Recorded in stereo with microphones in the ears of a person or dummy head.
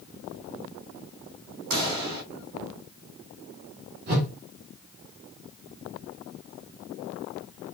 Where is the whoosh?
50° right (ahead or behind), 1.9 m.